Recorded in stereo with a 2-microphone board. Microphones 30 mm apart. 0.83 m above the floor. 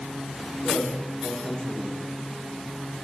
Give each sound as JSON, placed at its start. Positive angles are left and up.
{"t": 0.6, "sound": "a man speaking", "side_deg": 25, "distance_m": 2.5}